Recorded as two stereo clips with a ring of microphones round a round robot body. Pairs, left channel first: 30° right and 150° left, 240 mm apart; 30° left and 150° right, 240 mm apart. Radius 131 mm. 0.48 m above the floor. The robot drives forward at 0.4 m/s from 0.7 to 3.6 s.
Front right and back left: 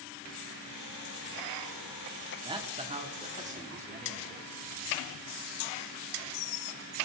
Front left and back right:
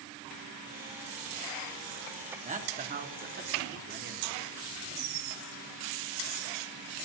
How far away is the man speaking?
About 1.2 m.